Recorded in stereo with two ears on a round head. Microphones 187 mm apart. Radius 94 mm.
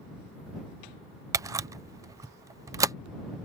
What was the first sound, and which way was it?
A camera shutter, 15° right (ahead or behind).